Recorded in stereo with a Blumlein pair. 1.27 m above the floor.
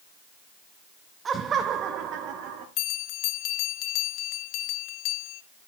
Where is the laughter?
20° right, 0.8 m; by 2.7 s 35° right, 2 m.